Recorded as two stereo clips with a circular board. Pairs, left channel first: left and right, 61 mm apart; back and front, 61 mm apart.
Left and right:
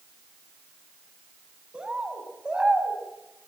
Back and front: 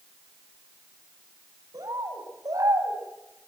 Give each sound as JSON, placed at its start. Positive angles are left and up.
{"t": 1.7, "sound": "a bird", "azimuth_deg": -15, "distance_m": 4.5}